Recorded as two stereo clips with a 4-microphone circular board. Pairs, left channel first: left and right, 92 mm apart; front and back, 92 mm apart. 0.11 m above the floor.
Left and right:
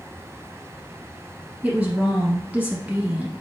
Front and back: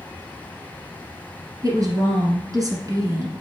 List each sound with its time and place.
1.6 s a woman speaking: 165° right, 1.9 m